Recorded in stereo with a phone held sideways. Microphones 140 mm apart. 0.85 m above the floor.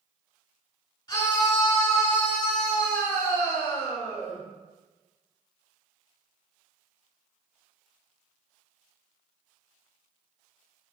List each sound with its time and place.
1.1 s a scream: 35° left (ahead or behind), 3 m; by 4.4 s 55° left (ahead or behind), 4.5 m